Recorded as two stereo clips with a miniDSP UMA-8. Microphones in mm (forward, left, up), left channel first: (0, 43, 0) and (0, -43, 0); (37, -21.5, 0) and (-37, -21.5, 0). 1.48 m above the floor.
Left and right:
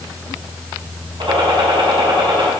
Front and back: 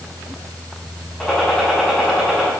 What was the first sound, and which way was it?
A gunshot, 80° right.